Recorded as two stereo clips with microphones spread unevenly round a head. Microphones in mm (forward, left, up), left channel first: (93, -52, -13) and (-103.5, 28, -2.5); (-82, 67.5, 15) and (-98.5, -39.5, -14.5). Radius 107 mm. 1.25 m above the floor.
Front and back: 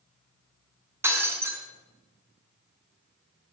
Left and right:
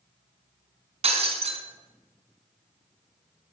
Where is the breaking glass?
125° right, 5 m.